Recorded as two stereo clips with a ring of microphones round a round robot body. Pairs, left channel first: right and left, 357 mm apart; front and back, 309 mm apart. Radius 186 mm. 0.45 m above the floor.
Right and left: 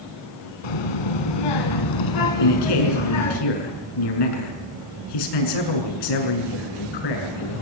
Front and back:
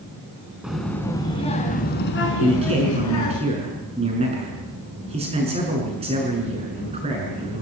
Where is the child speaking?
90° right, 3.5 m; by 3.4 s 40° right, 4 m.